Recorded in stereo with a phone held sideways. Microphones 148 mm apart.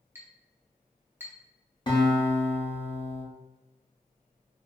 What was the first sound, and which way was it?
A clink, 15° right (ahead or behind).